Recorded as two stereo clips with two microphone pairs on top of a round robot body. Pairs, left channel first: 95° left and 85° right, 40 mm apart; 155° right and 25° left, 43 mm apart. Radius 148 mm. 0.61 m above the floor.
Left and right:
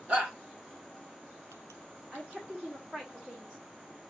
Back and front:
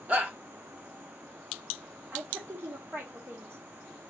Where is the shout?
25° right, 2.5 m.